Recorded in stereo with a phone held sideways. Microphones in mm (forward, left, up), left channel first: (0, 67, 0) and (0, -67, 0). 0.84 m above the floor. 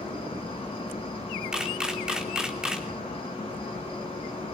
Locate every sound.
0.0 s an insect: 45° left (ahead or behind), 6 m
1.5 s a camera shutter: 5° right (ahead or behind), 2.5 m